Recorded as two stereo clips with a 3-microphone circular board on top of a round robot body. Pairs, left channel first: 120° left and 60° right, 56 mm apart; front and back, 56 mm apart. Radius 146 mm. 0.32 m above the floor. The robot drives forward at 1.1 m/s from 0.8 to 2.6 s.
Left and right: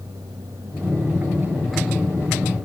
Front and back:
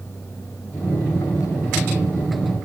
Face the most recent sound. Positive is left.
No sound to turn to.